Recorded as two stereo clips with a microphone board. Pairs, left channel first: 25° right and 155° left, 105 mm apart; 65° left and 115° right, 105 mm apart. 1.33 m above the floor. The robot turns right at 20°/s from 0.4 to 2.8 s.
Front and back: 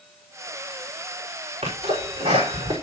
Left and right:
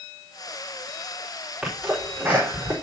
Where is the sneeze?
160° left, 4.5 m; by 2.7 s 175° right, 4.5 m.